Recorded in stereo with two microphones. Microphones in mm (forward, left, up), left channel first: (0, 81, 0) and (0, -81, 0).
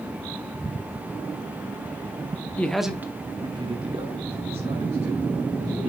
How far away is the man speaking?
About 1.0 m.